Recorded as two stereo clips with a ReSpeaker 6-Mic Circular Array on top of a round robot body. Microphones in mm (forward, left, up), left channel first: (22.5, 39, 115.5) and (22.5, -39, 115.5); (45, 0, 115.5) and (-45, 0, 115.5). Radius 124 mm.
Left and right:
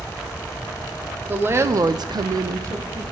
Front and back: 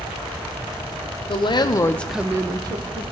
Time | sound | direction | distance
1.3 | a woman speaking | 25° right | 1.1 m